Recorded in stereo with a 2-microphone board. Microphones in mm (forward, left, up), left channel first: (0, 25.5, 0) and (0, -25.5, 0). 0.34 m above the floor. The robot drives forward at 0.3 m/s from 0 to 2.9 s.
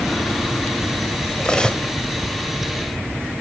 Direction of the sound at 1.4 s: 20° left (ahead or behind).